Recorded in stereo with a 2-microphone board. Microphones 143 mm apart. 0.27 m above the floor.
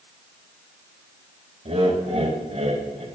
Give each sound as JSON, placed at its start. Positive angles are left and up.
{"t": 1.6, "sound": "laughter", "side_deg": -45, "distance_m": 1.2}